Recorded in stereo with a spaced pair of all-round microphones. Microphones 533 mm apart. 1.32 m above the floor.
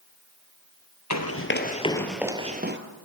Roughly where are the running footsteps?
Left.